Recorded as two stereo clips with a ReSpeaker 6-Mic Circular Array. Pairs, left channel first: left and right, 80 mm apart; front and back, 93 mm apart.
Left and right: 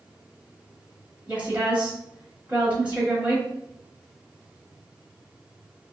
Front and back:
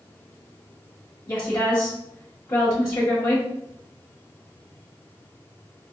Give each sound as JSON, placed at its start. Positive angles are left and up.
{"t": 1.3, "sound": "a woman speaking", "azimuth_deg": -35, "distance_m": 1.1}